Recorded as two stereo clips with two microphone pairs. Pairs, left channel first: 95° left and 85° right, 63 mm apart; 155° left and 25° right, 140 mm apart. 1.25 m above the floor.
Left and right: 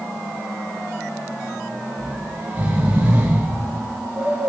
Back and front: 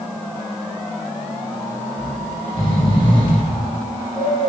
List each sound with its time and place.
2.0 s snoring: 150° right, 3 m